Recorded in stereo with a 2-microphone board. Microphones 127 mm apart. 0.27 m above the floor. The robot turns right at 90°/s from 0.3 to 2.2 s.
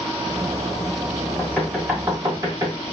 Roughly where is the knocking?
Centre.